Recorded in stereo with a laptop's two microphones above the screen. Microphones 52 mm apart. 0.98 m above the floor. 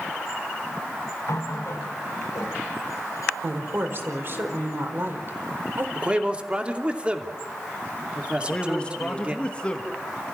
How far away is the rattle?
No rattle in this recording.